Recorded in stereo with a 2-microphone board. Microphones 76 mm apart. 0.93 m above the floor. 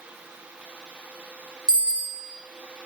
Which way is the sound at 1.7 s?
10° right (ahead or behind).